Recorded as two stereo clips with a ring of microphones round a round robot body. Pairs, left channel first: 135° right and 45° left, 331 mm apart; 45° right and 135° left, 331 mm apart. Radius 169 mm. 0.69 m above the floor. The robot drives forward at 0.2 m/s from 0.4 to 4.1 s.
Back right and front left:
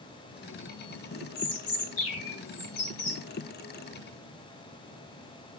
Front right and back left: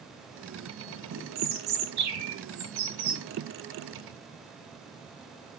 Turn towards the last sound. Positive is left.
turn(degrees=175)